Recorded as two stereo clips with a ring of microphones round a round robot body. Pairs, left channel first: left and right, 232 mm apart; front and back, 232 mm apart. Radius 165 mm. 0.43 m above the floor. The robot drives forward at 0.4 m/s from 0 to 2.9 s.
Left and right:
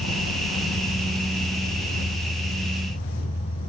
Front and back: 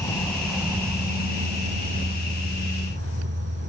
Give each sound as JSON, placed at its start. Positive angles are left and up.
{"t": 0.0, "sound": "an insect", "azimuth_deg": 75, "distance_m": 0.8}